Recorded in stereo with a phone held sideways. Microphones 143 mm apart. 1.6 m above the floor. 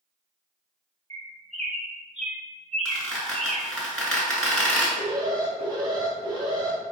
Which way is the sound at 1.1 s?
50° right (ahead or behind).